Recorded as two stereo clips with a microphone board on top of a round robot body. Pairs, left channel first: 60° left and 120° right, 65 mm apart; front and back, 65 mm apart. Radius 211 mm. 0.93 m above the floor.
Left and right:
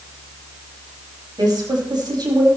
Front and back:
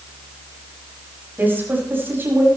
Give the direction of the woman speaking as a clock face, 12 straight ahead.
4 o'clock.